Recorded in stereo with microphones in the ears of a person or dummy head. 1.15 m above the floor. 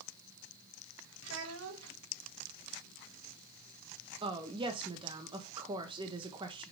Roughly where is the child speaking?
Right.